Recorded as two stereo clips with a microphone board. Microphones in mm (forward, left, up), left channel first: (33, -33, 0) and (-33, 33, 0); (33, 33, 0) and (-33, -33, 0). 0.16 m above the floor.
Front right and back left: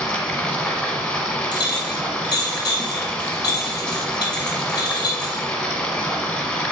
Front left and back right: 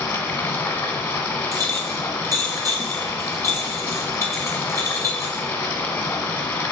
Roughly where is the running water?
Ahead.